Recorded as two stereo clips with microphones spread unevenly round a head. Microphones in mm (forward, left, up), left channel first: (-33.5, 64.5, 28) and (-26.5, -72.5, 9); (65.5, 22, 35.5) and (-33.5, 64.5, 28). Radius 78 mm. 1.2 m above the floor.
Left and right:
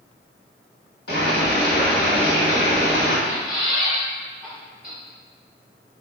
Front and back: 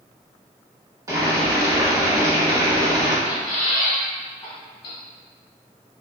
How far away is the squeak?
About 1.1 m.